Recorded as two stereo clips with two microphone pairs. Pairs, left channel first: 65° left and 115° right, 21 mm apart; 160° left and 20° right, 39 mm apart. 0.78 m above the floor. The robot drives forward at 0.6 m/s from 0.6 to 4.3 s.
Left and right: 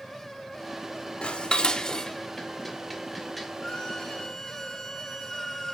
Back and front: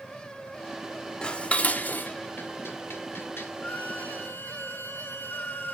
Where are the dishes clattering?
90° left, 0.8 m; by 3.5 s 150° left, 1.6 m.